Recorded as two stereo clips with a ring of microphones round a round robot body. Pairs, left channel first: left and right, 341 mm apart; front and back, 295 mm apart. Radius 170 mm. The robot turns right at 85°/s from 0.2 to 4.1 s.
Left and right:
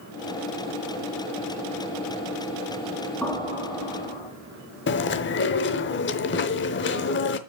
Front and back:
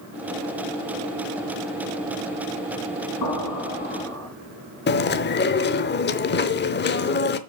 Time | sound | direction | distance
3.2 | an explosion | 5° left | 5 m
4.9 | chewing | 45° left | 0.7 m